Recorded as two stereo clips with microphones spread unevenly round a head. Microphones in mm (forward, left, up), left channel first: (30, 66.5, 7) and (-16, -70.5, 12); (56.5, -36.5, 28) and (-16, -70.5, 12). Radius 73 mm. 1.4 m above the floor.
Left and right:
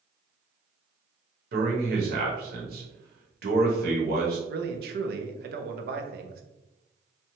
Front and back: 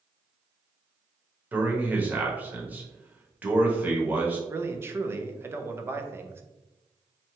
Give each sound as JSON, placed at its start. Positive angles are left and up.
{"t": 1.5, "sound": "a man speaking", "azimuth_deg": -90, "distance_m": 1.0}
{"t": 4.5, "sound": "a man speaking", "azimuth_deg": -90, "distance_m": 0.5}